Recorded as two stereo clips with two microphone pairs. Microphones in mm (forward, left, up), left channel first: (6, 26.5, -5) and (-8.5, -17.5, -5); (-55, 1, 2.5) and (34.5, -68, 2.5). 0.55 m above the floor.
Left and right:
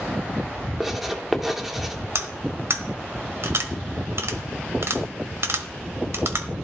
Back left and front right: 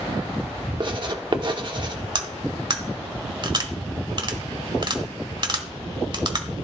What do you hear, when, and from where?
0.8 s writing: 25° right, 1.3 m
2.1 s cutlery clinking: 85° right, 1.3 m